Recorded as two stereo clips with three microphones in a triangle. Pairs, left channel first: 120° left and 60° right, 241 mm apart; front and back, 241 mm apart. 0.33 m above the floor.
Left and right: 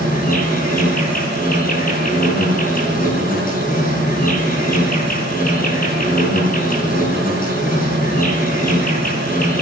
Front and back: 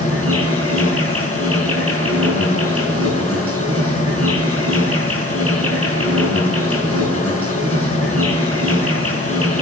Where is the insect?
170° left, 6 m.